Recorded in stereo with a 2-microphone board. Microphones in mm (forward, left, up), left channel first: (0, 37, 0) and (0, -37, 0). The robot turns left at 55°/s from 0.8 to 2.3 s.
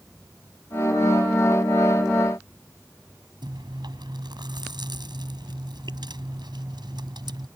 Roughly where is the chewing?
Right.